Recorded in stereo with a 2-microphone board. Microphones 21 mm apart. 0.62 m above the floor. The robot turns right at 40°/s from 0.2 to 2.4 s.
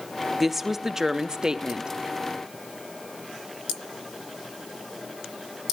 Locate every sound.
0.4 s a woman speaking: 165° right, 0.7 m; by 1.9 s 105° right, 0.7 m